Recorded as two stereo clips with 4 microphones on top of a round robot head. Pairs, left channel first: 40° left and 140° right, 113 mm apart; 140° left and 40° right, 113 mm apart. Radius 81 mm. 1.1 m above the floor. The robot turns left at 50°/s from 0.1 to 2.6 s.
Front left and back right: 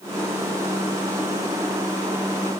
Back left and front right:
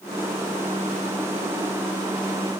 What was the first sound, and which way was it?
Only background noise.